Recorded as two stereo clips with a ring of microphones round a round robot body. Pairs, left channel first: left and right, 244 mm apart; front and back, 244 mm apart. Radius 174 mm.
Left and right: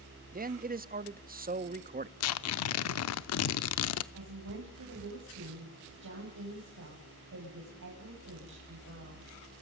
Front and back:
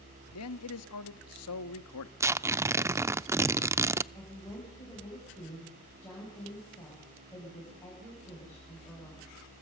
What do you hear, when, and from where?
0.3 s a man speaking: 35° right, 1.0 m
2.2 s tearing paper: 100° left, 0.6 m
4.1 s a woman speaking: 85° right, 6.5 m